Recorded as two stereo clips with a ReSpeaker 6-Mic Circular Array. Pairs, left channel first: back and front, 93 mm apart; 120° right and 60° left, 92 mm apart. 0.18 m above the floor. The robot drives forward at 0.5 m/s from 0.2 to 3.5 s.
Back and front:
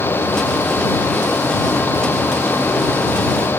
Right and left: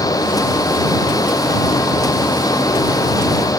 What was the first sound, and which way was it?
Only background noise.